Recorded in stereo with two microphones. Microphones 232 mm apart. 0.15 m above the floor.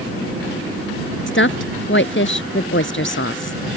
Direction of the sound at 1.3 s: 55° left (ahead or behind).